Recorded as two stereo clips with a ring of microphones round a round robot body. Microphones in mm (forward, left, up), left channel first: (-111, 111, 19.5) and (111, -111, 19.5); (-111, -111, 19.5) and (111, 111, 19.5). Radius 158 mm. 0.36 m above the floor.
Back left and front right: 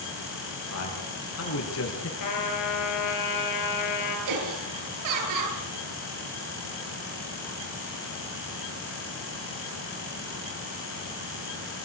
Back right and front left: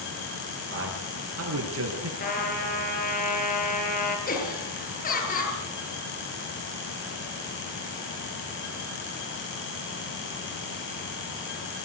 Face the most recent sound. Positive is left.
turn(degrees=-70)